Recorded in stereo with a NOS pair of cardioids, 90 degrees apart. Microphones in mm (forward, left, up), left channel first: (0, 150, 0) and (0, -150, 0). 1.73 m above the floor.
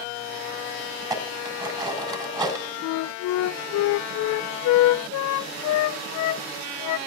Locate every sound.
1.0 s dishes clattering: 15° right, 5.5 m
2.8 s a flute: 70° left, 0.5 m